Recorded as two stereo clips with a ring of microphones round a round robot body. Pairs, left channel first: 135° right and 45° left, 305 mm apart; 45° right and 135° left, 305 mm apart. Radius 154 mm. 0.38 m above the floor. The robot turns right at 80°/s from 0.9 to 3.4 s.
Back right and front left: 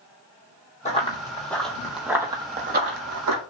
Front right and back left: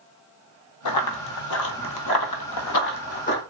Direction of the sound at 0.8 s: 70° right.